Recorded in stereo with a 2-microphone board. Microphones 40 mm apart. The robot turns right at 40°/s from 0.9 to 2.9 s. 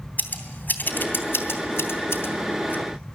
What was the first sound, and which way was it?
Scissors, 55° left (ahead or behind).